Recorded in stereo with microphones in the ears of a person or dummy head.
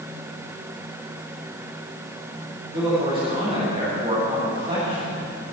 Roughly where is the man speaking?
Right.